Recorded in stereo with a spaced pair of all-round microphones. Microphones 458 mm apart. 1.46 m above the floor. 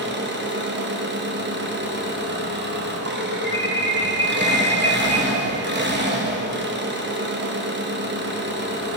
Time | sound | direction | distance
0.0 | an engine running | 25° right (ahead or behind) | 0.8 m
3.4 | an alarm | 45° left (ahead or behind) | 1.1 m